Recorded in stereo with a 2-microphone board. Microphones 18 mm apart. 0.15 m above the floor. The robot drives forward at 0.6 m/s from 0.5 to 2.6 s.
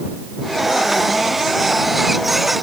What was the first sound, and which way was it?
Only background noise.